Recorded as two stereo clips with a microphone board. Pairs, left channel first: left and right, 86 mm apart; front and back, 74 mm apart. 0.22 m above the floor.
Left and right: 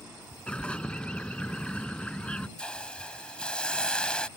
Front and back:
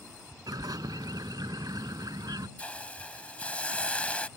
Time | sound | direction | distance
0.5 | a bird | 165° left | ?
2.6 | a hiss | 35° left | ?